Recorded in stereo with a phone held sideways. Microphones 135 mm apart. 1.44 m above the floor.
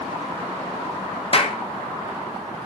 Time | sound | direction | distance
1.3 | a clap | 45° left (ahead or behind) | 0.6 m